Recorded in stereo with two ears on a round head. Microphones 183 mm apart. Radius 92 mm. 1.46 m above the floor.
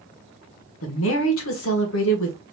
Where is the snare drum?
I don't hear a snare drum.